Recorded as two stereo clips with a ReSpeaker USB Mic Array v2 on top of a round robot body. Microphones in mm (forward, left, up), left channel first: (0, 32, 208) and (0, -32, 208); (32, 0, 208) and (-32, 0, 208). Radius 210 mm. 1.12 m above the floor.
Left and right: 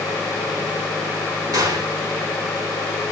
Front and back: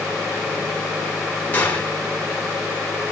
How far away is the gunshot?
About 5 m.